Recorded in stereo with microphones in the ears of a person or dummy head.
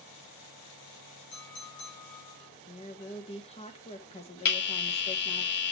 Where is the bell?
55° left (ahead or behind), 2 m.